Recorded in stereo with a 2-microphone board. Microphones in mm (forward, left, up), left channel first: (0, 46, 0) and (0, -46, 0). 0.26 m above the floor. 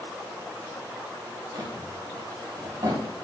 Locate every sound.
1.5 s a drawer: 45° right (ahead or behind), 1.9 m